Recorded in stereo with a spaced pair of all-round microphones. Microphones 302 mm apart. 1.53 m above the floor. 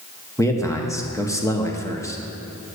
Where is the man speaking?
10° left (ahead or behind), 1.3 m.